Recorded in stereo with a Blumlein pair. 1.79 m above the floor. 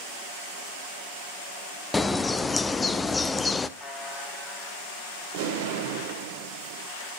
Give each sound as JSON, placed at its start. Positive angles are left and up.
{"t": 1.9, "sound": "a bird", "azimuth_deg": 10, "distance_m": 0.6}
{"t": 3.8, "sound": "a buzzer", "azimuth_deg": 10, "distance_m": 3.0}
{"t": 5.3, "sound": "an explosion", "azimuth_deg": -50, "distance_m": 1.4}